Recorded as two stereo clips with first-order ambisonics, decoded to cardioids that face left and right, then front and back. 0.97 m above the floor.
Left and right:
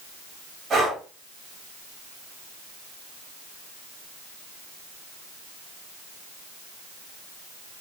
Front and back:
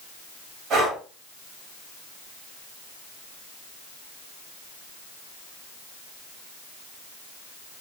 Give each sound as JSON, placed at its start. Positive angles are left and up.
{"t": 0.7, "sound": "breathing", "azimuth_deg": -150, "distance_m": 1.0}